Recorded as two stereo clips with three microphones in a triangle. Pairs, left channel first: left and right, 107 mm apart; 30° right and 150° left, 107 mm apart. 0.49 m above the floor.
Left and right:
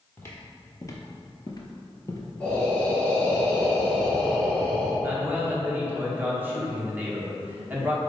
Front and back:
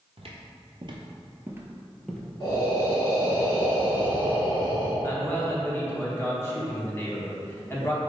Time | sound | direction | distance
0.2 | footsteps | 155° left | 0.9 m
2.4 | breathing | 10° left | 2.0 m
5.0 | a man speaking | 50° right | 0.8 m